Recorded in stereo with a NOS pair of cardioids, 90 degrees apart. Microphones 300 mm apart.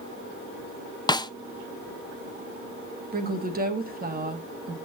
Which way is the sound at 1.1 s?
15° left.